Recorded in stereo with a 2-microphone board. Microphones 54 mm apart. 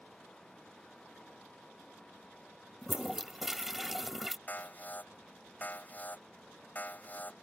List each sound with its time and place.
2.8 s a toilet flushing: 5° right (ahead or behind)
4.5 s an alarm: 35° left (ahead or behind)